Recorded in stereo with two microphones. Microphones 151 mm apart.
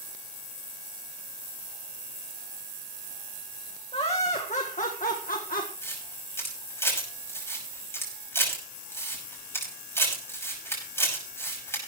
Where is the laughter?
40° left (ahead or behind), 1.6 m; by 5.7 s 70° left (ahead or behind), 1.5 m.